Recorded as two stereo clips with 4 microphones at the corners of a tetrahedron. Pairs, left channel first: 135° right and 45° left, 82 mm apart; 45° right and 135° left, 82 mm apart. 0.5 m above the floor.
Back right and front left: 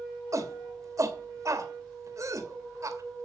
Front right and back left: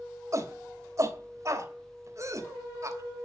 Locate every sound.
0.3 s a shout: 90° left, 2 m